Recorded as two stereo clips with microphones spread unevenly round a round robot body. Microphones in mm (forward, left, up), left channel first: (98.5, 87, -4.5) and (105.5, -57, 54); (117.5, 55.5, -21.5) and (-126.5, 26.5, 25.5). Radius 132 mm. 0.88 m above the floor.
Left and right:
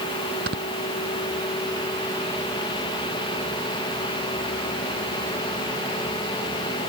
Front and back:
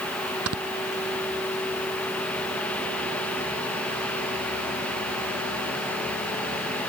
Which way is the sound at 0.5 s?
135° right.